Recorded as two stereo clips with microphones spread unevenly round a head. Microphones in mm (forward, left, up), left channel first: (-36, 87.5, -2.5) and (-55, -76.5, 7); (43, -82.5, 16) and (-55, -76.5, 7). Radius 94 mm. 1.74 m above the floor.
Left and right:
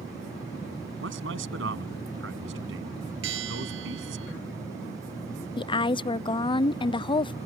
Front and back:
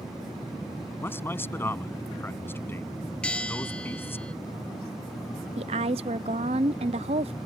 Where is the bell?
80° right.